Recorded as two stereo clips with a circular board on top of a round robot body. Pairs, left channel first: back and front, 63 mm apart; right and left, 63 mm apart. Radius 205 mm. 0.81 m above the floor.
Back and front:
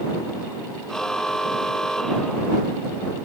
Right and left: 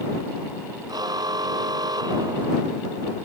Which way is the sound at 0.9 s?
100° left.